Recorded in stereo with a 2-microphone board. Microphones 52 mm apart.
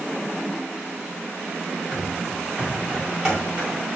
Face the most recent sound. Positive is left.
turn(degrees=-15)  # may be behind; listen again after turning